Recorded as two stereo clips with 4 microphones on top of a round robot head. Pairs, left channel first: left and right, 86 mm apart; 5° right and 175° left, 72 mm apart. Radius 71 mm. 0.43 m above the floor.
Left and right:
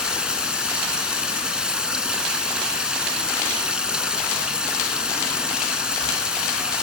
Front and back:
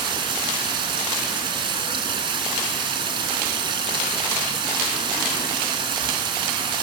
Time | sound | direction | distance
0.0 | running water | 170° right | 3 m